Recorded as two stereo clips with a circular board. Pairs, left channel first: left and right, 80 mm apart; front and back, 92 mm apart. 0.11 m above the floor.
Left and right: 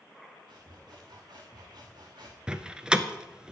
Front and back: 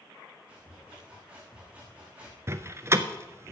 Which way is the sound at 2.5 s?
160° right.